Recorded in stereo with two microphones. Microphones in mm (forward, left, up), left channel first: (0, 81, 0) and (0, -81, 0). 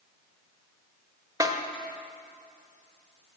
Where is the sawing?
No sawing in this recording.